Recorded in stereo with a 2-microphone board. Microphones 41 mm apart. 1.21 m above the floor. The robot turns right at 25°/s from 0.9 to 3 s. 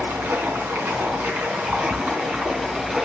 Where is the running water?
75° right, 4 m; by 3.1 s 20° right, 4 m.